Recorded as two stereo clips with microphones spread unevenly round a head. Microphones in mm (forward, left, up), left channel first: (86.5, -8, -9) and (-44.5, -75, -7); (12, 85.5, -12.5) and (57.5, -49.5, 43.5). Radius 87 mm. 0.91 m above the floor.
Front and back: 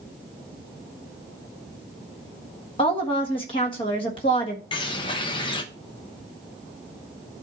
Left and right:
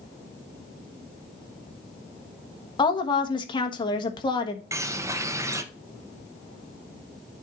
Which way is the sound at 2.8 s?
80° left.